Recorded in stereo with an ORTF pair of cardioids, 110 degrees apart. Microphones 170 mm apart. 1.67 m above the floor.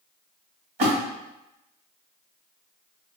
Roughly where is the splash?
Ahead right.